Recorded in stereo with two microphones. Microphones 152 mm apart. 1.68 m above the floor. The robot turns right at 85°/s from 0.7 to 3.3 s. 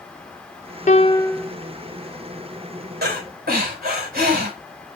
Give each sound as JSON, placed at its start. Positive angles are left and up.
{"t": 0.9, "sound": "a piano", "azimuth_deg": 130, "distance_m": 0.6}
{"t": 3.0, "sound": "breathing", "side_deg": -85, "distance_m": 4.5}